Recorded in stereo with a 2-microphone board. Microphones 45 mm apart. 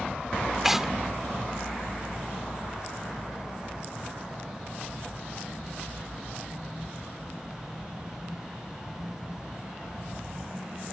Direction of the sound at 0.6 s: 5° right (ahead or behind).